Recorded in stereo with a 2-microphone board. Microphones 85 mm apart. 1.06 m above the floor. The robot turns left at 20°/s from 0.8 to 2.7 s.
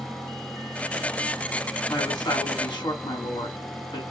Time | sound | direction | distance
1.9 | a woman speaking | 45° left (ahead or behind) | 3 m